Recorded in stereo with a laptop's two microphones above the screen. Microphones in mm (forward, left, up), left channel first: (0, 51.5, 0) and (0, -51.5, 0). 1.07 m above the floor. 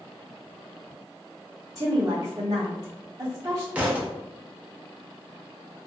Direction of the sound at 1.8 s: 35° right (ahead or behind).